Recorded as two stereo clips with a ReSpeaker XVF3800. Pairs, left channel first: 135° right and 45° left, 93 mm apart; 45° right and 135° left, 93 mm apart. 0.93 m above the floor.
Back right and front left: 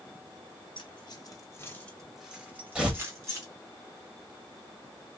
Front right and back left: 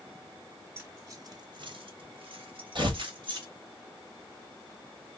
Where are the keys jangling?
160° right, 1.0 m; by 3.5 s 100° left, 1.6 m.